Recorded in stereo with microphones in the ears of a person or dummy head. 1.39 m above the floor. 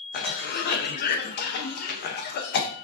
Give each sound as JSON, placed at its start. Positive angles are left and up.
{"t": 0.1, "sound": "a cough", "side_deg": 50, "distance_m": 0.6}